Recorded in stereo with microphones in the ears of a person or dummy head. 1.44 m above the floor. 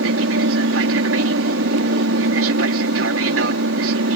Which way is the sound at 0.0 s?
70° right (ahead or behind).